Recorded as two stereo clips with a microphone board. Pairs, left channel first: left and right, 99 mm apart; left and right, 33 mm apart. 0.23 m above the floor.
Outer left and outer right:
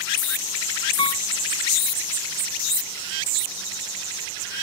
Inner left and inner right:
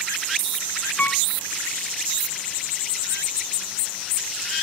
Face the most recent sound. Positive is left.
turn(degrees=65)  # may be behind; listen again after turning